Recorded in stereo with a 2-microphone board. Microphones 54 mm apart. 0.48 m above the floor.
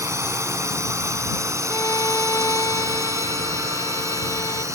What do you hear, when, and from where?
0.0 s a drone: 65° right (ahead or behind); by 4.8 s 75° right (ahead or behind)
1.7 s a violin: 90° left